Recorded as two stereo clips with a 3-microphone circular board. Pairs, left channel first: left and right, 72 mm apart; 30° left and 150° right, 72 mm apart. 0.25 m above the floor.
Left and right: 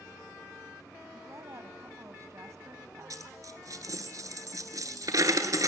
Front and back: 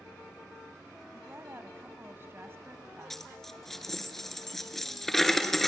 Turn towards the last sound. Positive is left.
turn(degrees=-55)